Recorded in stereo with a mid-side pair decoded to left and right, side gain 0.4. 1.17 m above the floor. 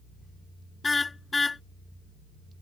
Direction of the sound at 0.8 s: 25° left.